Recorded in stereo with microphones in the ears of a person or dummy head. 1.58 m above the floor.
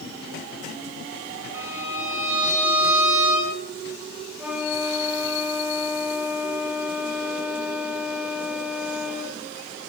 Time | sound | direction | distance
1.5 | a violin | 15° right (ahead or behind) | 8 m
4.4 | a flute | 10° right (ahead or behind) | 3.5 m